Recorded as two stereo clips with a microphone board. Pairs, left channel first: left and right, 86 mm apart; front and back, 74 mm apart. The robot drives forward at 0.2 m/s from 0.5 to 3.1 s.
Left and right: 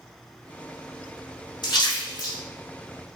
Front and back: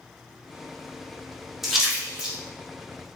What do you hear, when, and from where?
1.6 s a splash: 95° left, 1.3 m; by 2.4 s 100° left, 1.3 m